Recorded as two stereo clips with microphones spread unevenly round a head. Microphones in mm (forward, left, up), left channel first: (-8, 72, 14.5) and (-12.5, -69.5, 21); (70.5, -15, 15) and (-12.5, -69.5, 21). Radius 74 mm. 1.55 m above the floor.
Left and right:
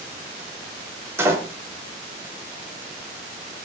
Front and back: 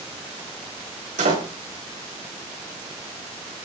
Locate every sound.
1.2 s a door slam: 165° right, 4.5 m